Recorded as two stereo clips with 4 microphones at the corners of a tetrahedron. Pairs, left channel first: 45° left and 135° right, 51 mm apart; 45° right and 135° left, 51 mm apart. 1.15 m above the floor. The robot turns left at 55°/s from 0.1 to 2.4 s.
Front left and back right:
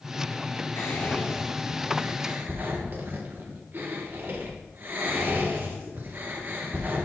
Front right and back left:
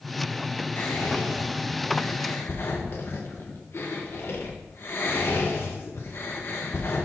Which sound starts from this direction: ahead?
Whispering, at 0.8 s.